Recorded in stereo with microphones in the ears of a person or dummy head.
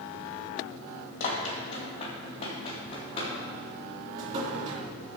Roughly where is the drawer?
Right.